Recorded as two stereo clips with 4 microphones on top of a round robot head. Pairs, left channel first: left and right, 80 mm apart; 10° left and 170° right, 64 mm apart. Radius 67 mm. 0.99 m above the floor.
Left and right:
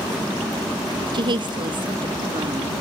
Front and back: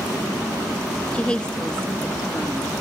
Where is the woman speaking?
65° right, 0.7 m; by 2.7 s 70° right, 1.7 m.